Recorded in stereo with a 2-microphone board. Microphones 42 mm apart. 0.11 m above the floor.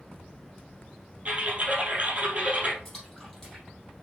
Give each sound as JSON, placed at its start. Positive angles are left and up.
{"t": 1.2, "sound": "typing on a keyboard", "side_deg": -30, "distance_m": 2.5}
{"t": 2.9, "sound": "a splash", "side_deg": 10, "distance_m": 3.5}